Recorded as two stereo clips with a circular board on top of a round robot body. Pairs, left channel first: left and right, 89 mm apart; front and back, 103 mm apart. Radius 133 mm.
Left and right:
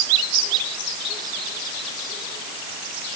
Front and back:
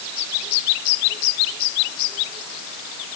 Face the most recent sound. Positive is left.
No sound to turn to.